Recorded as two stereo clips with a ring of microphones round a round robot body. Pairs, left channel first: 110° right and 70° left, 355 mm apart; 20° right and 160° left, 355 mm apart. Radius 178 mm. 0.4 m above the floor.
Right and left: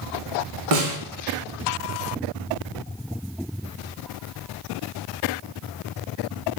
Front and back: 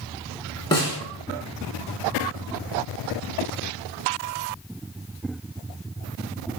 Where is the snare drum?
55° left, 0.8 m.